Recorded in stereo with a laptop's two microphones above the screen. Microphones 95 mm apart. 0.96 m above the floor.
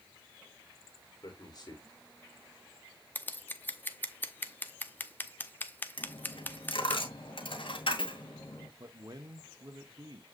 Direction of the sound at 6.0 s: 70° left (ahead or behind).